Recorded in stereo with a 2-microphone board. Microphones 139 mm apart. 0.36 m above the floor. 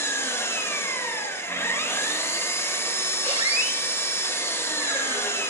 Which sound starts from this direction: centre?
An engine running, at 0.0 s.